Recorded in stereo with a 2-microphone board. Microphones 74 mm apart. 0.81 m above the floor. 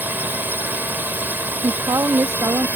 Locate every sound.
0.0 s a drone: 25° right (ahead or behind)
1.6 s a woman speaking: 55° right (ahead or behind)